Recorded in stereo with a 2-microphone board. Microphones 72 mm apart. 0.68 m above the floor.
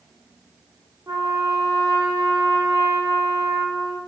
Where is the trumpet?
50° right (ahead or behind), 0.8 m.